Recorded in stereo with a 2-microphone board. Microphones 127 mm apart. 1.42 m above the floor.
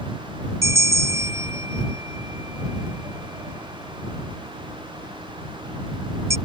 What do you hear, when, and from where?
0.6 s a bell: 25° right (ahead or behind)